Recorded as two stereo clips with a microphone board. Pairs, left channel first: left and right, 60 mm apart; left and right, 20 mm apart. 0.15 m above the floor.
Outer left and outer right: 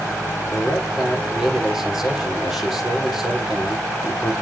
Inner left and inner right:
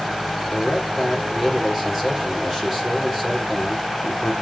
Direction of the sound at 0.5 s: 5° right (ahead or behind).